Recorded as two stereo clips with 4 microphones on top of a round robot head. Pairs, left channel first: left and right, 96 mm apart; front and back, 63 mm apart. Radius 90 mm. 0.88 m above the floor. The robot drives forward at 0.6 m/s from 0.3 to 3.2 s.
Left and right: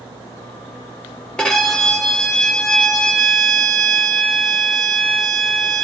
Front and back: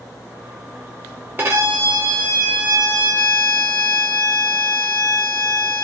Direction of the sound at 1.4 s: 160° left.